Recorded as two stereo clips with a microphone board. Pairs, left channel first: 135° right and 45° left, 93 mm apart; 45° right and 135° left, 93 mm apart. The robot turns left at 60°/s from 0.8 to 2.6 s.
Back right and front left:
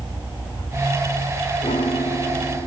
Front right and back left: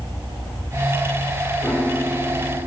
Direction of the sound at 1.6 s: 120° right.